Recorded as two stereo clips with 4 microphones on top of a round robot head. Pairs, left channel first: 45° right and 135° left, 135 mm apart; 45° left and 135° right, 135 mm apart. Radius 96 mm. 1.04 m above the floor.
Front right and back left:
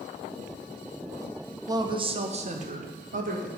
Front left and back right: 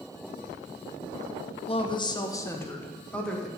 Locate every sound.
1.7 s a woman speaking: 75° left, 0.9 m; by 3.5 s 130° left, 1.7 m